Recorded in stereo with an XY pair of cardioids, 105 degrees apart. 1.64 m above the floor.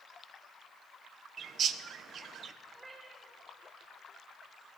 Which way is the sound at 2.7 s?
20° right.